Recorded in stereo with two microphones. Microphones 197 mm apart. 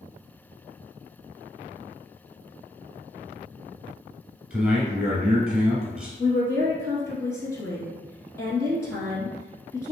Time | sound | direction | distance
4.5 | a man speaking | 5° right (ahead or behind) | 1.5 m
6.2 | a woman speaking | 15° left (ahead or behind) | 1.2 m